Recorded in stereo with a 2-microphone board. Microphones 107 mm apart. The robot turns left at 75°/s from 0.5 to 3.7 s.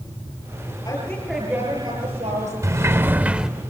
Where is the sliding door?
25° right (ahead or behind), 0.7 m; by 3.5 s 5° right (ahead or behind), 0.7 m.